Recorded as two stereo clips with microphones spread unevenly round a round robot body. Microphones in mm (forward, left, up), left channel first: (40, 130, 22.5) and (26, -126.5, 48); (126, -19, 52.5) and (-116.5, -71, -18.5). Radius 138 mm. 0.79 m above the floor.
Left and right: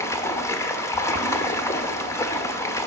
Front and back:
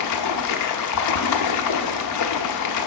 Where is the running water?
15° left, 0.9 m.